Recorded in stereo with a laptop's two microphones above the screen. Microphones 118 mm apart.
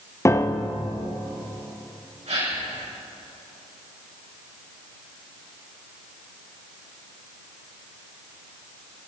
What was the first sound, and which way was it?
A piano, 25° left (ahead or behind).